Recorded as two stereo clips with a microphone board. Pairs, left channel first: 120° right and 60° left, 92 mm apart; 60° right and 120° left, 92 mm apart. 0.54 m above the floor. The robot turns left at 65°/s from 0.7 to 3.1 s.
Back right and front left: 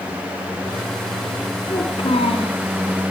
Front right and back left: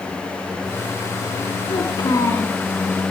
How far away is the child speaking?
About 3.5 m.